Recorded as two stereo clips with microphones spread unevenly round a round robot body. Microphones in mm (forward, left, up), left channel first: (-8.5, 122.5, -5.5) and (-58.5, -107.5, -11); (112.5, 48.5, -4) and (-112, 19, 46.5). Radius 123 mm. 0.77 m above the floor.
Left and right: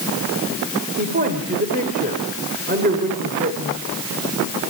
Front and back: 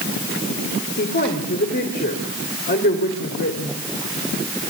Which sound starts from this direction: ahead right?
A woman speaking, at 1.0 s.